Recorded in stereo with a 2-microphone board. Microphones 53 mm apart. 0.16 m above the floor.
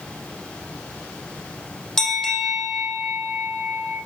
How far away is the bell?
About 7 m.